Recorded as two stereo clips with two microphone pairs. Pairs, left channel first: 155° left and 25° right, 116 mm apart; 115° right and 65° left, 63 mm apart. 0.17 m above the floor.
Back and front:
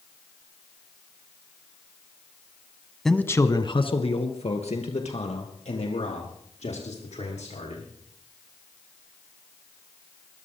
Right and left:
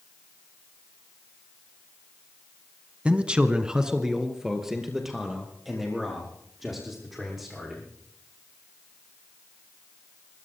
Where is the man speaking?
70° left, 1.0 m; by 7.8 s 150° left, 7.5 m.